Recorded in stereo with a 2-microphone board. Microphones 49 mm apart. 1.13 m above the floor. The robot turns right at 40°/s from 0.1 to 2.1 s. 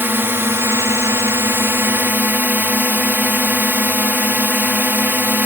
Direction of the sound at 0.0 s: 125° right.